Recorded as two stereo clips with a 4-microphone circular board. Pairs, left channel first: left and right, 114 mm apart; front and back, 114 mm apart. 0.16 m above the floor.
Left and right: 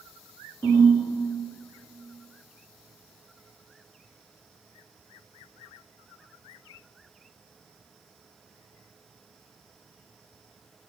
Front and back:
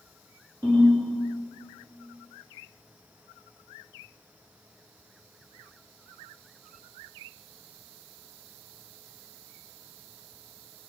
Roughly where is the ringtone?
Behind left.